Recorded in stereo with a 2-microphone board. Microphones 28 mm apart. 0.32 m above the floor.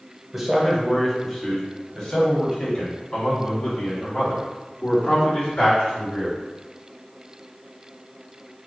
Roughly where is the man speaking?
Centre.